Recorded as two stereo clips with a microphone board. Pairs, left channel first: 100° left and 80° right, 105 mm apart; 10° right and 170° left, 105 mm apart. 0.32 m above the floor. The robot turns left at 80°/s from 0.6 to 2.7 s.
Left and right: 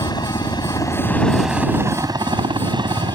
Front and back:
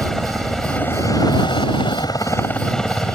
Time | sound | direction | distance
0.0 | a helicopter | 75° left | ?